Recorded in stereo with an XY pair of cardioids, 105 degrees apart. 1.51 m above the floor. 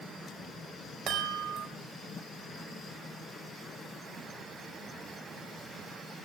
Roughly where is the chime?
Right.